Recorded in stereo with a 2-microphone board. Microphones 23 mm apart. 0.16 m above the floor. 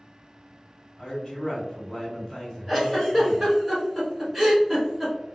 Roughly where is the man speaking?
Left.